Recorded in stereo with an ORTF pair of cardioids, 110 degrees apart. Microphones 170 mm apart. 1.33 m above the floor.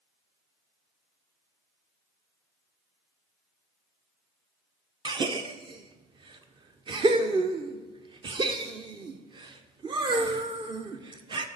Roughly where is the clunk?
No clunk in this recording.